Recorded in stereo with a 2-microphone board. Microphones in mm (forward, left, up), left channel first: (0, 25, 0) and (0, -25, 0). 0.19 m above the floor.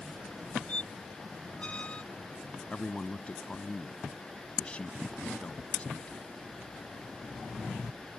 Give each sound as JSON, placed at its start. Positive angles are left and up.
{"t": 0.7, "sound": "a squeak", "side_deg": 25}
{"t": 2.7, "sound": "a man speaking", "side_deg": 25}